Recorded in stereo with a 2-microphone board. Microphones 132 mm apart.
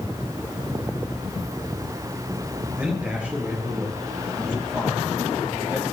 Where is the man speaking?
10° right (ahead or behind), 7 m; by 5.8 s 15° right (ahead or behind), 10 m.